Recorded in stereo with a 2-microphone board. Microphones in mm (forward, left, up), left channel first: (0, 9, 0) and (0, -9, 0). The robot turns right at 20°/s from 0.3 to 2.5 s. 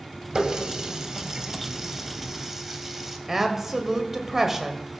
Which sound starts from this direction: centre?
A woman speaking, at 3.3 s.